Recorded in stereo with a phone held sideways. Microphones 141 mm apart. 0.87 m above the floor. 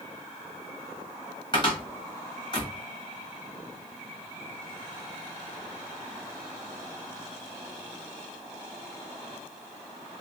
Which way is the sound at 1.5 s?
35° left (ahead or behind).